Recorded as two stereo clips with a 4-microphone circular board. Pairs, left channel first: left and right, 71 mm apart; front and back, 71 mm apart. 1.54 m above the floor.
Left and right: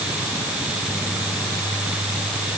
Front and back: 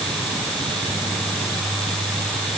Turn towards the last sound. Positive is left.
No sound to turn to.